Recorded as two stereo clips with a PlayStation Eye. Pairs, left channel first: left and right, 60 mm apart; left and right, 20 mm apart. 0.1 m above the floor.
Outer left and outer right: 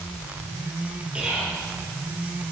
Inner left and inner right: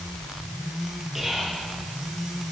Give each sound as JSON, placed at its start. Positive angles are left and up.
{"t": 1.1, "sound": "whispering", "side_deg": -15, "distance_m": 2.5}